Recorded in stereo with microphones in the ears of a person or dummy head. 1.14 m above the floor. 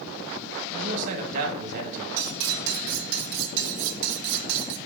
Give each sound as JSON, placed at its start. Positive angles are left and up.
{"t": 0.7, "sound": "a man speaking", "side_deg": -45, "distance_m": 1.5}
{"t": 2.2, "sound": "cutlery clinking", "side_deg": -60, "distance_m": 0.6}